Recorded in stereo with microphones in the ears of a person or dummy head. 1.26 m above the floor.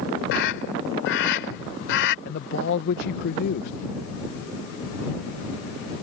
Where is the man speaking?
50° left (ahead or behind).